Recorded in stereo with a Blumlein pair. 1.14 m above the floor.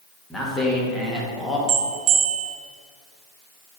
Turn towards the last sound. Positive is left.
turn(degrees=-35)